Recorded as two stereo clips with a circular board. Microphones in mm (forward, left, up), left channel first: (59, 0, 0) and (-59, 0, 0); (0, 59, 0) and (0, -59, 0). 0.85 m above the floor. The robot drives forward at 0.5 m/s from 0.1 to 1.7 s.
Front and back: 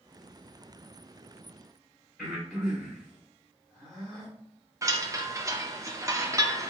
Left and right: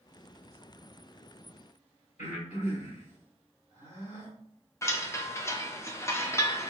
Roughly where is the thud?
No thud in this recording.